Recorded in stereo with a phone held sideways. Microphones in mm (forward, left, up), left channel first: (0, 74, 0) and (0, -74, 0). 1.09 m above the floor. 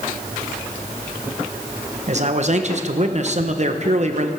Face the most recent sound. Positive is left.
turn(degrees=-50)  # may be behind; listen again after turning